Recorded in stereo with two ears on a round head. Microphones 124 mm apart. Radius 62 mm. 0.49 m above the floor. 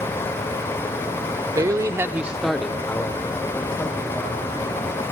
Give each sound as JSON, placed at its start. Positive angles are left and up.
{"t": 1.6, "sound": "a man speaking", "side_deg": -25, "distance_m": 1.1}